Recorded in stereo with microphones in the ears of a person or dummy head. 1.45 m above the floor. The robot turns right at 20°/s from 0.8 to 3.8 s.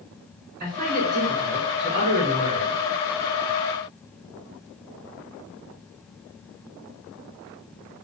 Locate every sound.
0.6 s a man speaking: 55° right, 4.5 m; by 2.8 s 20° right, 4.5 m